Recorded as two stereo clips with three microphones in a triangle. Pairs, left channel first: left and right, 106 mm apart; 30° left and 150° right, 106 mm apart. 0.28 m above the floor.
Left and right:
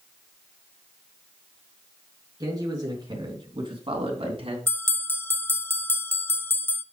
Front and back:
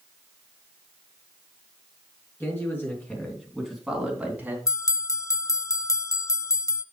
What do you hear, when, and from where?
2.4 s a man speaking: 35° right, 4 m; by 4.6 s 80° right, 3 m
4.7 s a bell: 45° left, 0.5 m